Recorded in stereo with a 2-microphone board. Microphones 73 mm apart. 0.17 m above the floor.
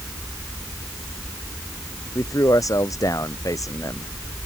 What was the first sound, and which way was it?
A man speaking, 50° left (ahead or behind).